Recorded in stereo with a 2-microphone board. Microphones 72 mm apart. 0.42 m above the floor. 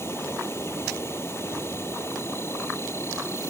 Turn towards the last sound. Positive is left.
turn(degrees=35)  # may be behind; listen again after turning